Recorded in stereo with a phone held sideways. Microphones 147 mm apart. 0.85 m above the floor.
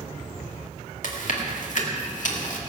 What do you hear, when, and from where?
1.0 s chewing: 60° left (ahead or behind), 2.0 m